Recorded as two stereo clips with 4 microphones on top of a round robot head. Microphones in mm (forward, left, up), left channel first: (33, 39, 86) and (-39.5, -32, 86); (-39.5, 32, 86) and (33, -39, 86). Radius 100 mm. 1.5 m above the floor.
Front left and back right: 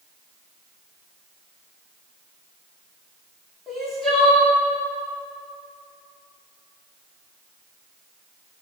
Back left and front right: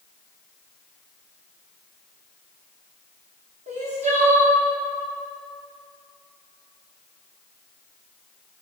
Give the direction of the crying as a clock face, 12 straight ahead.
1 o'clock.